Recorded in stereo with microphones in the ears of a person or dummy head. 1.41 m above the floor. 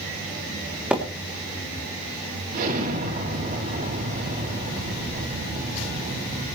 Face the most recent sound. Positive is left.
turn(degrees=-50)  # may be behind; listen again after turning